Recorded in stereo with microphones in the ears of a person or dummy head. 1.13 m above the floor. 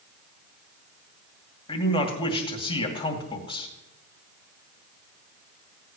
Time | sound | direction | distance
1.7 | a man speaking | 20° left (ahead or behind) | 2.5 m